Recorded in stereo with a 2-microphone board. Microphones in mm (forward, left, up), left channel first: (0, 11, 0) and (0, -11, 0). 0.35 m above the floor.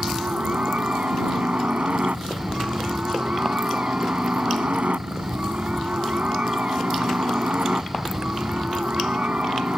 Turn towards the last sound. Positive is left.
turn(degrees=-65)  # may be behind; listen again after turning